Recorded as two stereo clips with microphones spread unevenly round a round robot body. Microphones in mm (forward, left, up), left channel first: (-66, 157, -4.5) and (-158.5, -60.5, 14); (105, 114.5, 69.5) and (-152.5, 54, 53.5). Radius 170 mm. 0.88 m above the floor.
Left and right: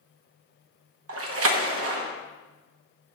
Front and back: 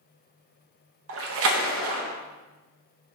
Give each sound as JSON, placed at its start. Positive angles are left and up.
{"t": 1.1, "sound": "a splash", "azimuth_deg": -135, "distance_m": 1.1}